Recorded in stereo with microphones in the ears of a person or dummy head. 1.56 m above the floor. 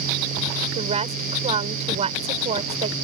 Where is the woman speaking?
30° right (ahead or behind).